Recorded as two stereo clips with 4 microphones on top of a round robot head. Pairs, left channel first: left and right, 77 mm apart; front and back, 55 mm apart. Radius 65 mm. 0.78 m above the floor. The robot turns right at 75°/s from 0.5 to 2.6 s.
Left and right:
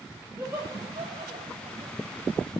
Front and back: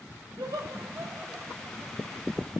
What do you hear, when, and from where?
0.4 s laughter: 155° right, 4.5 m; by 2.0 s 45° right, 4.5 m